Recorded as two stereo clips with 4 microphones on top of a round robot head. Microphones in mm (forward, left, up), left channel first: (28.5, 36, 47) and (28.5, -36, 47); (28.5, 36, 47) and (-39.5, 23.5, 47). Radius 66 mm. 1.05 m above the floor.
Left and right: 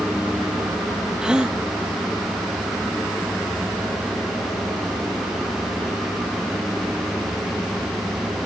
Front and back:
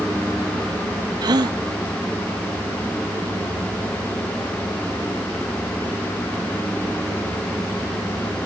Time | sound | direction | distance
1.2 | a gasp | 170° right | ?